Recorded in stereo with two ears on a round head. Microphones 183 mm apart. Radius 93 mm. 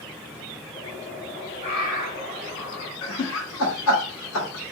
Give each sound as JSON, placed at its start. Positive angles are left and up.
{"t": 0.7, "sound": "a bird", "side_deg": 55, "distance_m": 2.0}
{"t": 3.0, "sound": "laughter", "side_deg": 75, "distance_m": 1.8}